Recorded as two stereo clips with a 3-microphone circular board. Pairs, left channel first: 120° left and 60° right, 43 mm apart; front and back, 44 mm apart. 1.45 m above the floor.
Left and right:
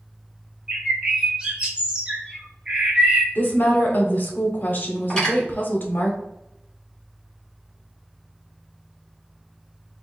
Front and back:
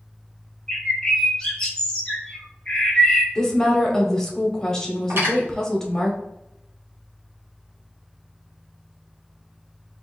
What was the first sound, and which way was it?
A bird, 30° right.